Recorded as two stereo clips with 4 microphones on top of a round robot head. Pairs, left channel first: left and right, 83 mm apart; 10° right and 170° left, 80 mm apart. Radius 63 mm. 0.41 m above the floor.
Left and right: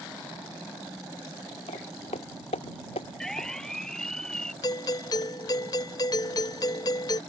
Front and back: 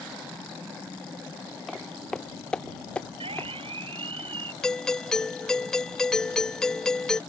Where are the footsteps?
80° left; by 3.5 s 60° left.